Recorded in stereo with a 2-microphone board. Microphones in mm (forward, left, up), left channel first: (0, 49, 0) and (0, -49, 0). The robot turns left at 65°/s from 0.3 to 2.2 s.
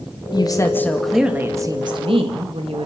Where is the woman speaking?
50° left, 2.5 m; by 2.9 s 70° right, 2.5 m.